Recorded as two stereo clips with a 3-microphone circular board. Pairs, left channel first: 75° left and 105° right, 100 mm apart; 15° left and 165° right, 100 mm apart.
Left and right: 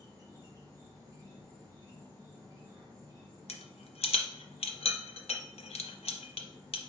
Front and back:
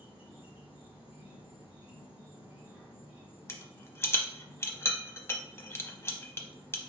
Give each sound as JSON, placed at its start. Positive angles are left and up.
{"t": 0.0, "sound": "an insect", "azimuth_deg": -110, "distance_m": 1.6}
{"t": 3.5, "sound": "a rattle", "azimuth_deg": 80, "distance_m": 0.7}